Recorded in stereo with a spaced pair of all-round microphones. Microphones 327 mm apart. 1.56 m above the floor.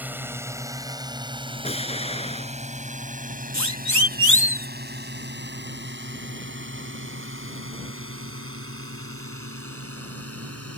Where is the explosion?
15° left (ahead or behind).